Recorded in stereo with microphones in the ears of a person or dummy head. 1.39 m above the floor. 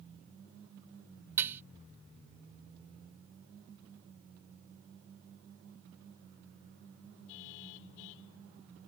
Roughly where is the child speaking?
I don't hear a child speaking.